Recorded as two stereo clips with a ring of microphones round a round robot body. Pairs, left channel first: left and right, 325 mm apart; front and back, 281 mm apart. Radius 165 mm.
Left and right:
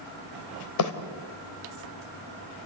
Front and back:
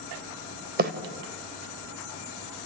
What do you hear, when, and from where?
0.8 s a bird: 125° left, 2.5 m